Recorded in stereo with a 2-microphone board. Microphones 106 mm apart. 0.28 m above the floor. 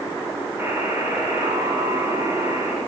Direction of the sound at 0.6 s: 20° right (ahead or behind).